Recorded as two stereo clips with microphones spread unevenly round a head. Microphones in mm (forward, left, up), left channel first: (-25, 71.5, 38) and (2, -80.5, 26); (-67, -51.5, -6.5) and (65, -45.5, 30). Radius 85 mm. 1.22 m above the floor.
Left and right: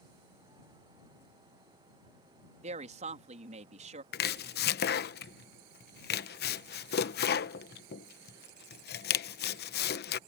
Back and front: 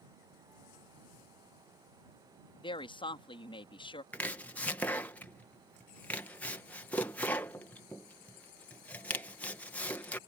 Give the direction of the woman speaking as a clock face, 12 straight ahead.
4 o'clock.